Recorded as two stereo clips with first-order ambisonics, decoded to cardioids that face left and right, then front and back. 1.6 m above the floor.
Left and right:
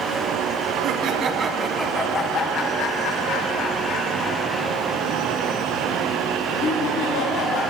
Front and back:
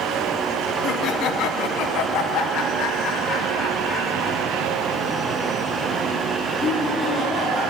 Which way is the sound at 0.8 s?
50° right.